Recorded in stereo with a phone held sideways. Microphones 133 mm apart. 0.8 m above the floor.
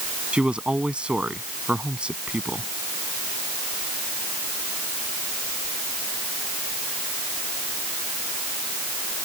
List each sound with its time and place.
0.3 s a man speaking: 5° right (ahead or behind)